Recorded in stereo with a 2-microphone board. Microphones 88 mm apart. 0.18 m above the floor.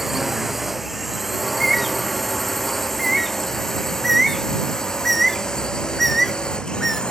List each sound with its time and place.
0.0 s a drone: 5° right (ahead or behind); by 7.1 s 10° left (ahead or behind)
1.4 s a bird: centre (ahead or behind)